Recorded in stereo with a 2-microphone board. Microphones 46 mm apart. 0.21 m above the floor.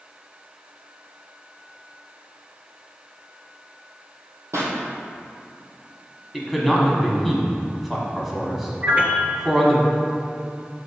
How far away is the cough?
No cough in this recording.